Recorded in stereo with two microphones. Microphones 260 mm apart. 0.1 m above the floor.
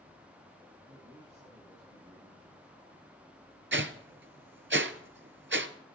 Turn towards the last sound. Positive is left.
turn(degrees=-50)  # may be behind; listen again after turning